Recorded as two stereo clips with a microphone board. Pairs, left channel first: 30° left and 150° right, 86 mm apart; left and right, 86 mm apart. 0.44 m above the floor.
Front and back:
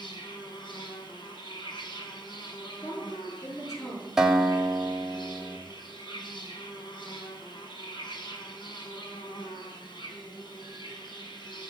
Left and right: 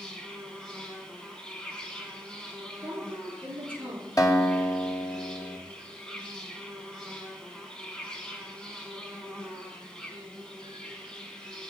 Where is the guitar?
130° left, 2.0 m.